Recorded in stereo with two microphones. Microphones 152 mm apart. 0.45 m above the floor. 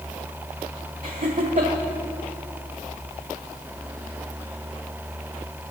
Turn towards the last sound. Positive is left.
turn(degrees=-55)  # may be behind; listen again after turning